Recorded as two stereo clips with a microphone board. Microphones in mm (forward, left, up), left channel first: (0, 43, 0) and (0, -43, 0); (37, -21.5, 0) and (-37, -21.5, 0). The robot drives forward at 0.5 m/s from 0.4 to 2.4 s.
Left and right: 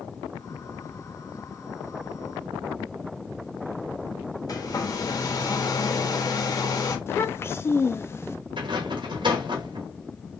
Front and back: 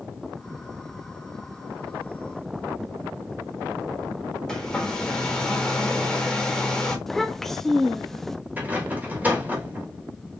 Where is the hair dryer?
80° left, 1.2 m.